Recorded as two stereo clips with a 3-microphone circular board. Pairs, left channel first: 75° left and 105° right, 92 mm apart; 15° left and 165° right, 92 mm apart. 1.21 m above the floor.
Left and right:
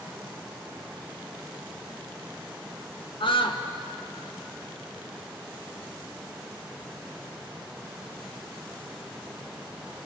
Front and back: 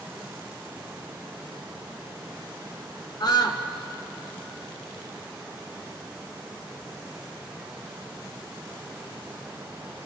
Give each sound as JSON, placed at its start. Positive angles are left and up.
{"t": 3.2, "sound": "a scream", "azimuth_deg": 55, "distance_m": 1.8}